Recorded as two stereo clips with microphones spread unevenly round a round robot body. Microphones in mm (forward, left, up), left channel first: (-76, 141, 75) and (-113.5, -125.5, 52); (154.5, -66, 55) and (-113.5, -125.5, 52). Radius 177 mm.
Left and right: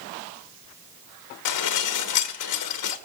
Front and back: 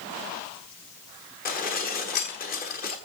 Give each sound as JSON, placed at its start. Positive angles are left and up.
{"t": 1.4, "sound": "dishes clattering", "azimuth_deg": 75, "distance_m": 1.2}